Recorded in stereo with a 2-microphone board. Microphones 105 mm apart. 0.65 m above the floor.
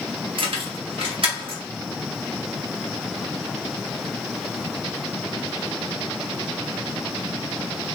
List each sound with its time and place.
0.4 s keys jangling: 55° right (ahead or behind), 0.7 m